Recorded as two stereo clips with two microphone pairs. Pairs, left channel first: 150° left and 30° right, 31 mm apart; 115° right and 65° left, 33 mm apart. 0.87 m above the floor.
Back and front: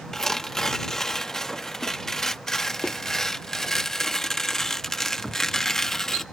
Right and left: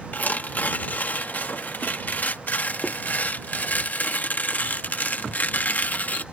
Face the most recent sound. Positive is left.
turn(degrees=-135)